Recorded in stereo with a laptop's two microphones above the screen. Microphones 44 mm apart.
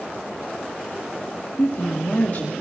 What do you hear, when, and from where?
1.6 s a woman speaking: 45° left (ahead or behind), 2 m